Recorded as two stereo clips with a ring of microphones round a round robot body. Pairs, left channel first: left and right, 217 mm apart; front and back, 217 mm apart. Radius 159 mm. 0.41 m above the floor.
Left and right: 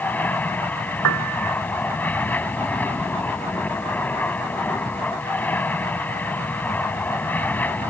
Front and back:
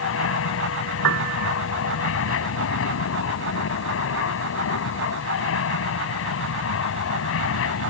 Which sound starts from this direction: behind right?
A piano, at 1.0 s.